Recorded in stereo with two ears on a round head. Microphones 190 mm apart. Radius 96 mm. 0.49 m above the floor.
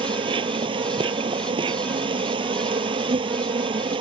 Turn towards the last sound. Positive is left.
turn(degrees=-25)  # may be behind; listen again after turning